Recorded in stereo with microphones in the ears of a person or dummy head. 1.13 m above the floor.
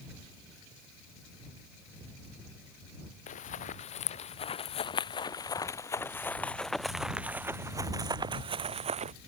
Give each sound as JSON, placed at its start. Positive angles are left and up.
{"t": 3.3, "sound": "running footsteps", "side_deg": 40}